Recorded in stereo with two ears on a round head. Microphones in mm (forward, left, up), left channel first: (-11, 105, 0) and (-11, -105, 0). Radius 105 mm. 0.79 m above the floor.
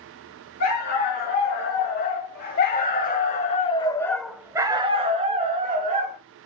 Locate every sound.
0.6 s a dog barking: 40° left (ahead or behind), 2.0 m; by 6.2 s 35° right (ahead or behind), 1.2 m